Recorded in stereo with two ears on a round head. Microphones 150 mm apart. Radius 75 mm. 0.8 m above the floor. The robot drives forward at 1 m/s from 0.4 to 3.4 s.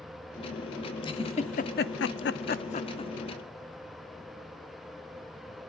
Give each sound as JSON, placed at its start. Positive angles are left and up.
{"t": 1.0, "sound": "a giggle", "side_deg": 30, "distance_m": 1.3}